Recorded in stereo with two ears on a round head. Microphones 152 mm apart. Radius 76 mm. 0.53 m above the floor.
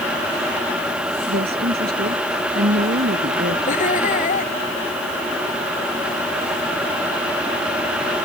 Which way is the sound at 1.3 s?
60° right (ahead or behind).